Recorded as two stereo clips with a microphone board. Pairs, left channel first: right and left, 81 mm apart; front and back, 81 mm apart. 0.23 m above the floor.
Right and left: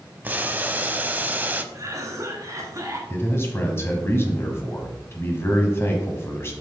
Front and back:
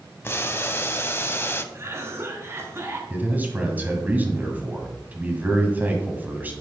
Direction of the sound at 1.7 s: 130° left.